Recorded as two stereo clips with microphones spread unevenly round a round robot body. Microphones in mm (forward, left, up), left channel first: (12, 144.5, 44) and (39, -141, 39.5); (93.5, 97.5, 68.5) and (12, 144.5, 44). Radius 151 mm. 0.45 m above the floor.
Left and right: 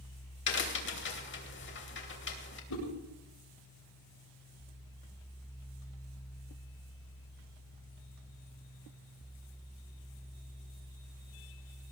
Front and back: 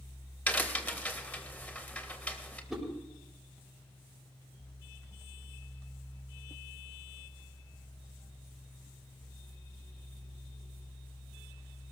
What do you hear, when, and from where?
0.5 s a crack: 50° left, 3 m
2.7 s a whoosh: 65° left, 7.5 m